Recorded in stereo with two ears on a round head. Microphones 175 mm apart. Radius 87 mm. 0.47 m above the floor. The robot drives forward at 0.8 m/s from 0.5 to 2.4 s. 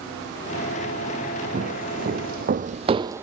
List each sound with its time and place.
1.5 s footsteps: 40° right (ahead or behind), 1.6 m; by 3.2 s 10° right (ahead or behind), 0.5 m